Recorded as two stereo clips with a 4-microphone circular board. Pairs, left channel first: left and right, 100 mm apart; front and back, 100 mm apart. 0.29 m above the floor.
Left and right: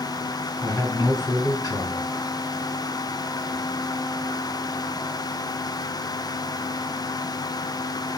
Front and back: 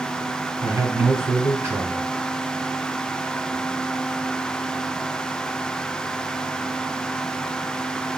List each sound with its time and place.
0.6 s a man speaking: 130° left, 1.7 m